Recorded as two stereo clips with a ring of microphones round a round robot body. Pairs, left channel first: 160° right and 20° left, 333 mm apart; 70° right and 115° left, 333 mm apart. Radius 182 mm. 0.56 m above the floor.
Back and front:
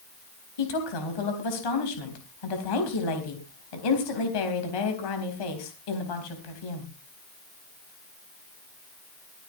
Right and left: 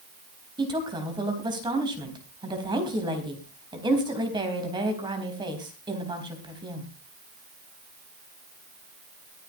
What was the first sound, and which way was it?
A woman speaking, 170° right.